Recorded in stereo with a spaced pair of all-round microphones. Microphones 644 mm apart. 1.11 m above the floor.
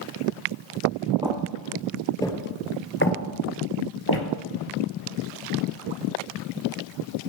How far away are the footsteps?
About 1.6 m.